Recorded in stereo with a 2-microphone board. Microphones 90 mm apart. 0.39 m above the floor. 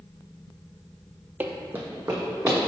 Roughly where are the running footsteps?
Centre.